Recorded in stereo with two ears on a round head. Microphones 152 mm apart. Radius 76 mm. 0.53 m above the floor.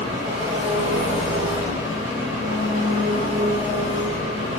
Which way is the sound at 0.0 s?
30° right (ahead or behind).